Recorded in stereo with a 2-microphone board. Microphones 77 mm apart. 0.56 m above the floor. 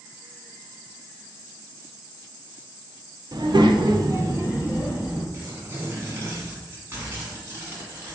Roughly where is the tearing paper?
Right.